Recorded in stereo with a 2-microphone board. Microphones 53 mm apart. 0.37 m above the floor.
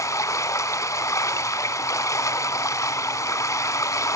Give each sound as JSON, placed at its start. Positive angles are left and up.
{"t": 0.0, "sound": "running water", "side_deg": 85, "distance_m": 0.9}